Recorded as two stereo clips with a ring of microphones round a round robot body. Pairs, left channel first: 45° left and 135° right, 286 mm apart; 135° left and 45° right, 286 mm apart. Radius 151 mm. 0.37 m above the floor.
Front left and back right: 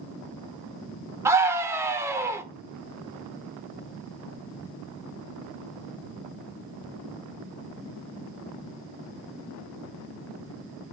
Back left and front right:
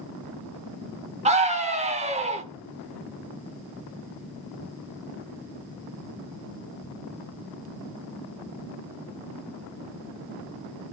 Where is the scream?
65° right, 1.0 m.